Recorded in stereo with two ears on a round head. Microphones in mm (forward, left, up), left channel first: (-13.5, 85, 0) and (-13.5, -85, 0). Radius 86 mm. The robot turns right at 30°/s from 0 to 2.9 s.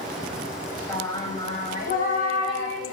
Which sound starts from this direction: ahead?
Singing, at 0.9 s.